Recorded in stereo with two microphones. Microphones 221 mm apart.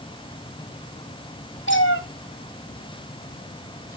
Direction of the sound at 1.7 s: 60° left (ahead or behind).